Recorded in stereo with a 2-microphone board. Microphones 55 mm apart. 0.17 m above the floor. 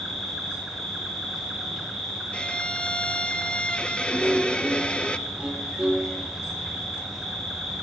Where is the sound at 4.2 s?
20° right (ahead or behind), 4 m.